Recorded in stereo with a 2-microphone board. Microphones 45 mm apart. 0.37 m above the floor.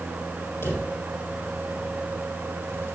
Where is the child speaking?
I don't hear a child speaking.